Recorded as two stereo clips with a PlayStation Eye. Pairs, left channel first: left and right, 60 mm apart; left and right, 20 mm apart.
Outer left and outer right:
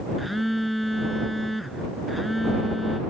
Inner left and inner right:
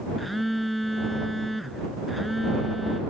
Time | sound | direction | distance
0.2 | a phone buzzing | centre (ahead or behind) | ?